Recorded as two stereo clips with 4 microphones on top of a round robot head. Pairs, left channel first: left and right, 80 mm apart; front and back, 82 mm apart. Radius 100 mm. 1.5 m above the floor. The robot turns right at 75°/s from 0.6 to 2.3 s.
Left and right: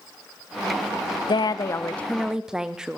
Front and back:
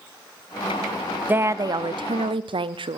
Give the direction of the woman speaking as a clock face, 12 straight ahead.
8 o'clock.